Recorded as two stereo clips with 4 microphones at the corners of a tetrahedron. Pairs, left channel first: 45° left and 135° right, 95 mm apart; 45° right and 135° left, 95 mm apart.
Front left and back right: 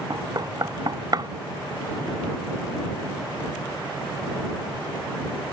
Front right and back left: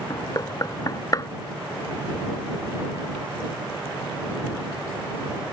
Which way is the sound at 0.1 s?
95° right.